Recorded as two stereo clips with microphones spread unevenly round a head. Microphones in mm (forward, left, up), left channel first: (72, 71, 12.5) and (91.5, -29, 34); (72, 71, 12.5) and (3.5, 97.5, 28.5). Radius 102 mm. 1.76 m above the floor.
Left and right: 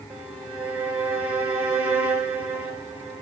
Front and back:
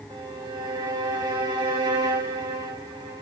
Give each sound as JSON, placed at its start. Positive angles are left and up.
{"t": 0.1, "sound": "a violin", "azimuth_deg": -155, "distance_m": 2.0}